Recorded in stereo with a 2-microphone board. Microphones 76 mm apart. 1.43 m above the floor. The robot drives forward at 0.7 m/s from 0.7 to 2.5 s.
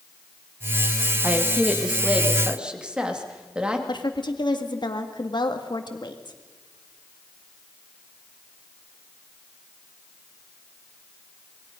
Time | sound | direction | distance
1.2 | a woman speaking | 20° right (ahead or behind) | 1.6 m
3.9 | a woman speaking | 70° left (ahead or behind) | 2.0 m